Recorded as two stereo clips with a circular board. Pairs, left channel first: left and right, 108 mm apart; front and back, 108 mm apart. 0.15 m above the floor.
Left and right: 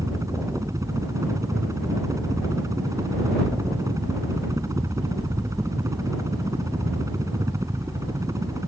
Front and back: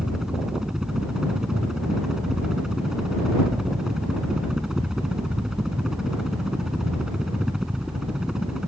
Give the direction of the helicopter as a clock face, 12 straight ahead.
3 o'clock.